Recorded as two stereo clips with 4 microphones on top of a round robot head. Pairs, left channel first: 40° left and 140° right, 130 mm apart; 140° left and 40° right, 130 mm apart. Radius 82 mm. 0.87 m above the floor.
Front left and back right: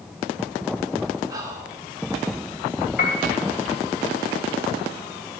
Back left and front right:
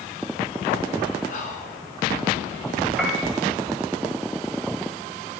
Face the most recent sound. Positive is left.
turn(degrees=55)